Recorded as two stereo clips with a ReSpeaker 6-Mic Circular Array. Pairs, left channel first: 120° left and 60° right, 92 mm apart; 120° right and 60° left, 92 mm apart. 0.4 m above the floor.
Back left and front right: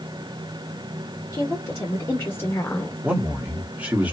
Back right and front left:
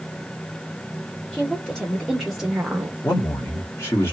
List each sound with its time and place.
1.3 s a woman speaking: 165° left, 1.5 m; by 3.0 s 85° left, 1.0 m
3.0 s a man speaking: 115° right, 1.3 m